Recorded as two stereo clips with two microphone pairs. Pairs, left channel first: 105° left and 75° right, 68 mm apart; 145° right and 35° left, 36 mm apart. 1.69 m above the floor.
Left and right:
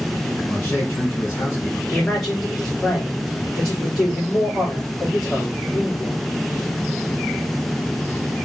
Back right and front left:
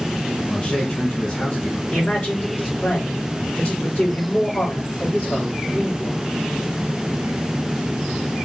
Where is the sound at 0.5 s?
160° left, 2 m.